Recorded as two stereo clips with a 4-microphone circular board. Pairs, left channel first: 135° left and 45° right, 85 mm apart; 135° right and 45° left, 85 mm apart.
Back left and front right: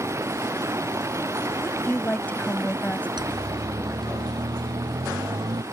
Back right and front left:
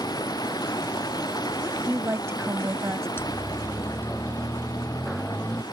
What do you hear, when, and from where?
0.0 s running water: 100° right
1.6 s a woman speaking: 75° left
3.2 s a siren: 75° right; by 5.6 s 65° right